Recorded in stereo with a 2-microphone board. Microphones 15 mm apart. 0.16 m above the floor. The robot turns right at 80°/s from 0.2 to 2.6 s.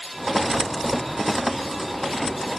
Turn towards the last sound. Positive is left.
No sound to turn to.